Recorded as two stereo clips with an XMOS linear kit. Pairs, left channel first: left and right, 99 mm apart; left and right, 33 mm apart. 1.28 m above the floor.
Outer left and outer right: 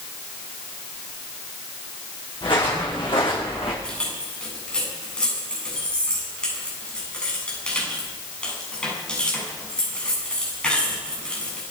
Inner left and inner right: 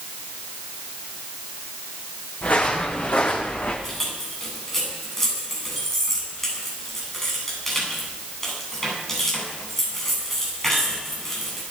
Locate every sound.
2.4 s footsteps: 55° left (ahead or behind), 6 m; by 3.7 s 65° left (ahead or behind), 5.5 m
3.8 s keys jangling: 10° left (ahead or behind), 7.5 m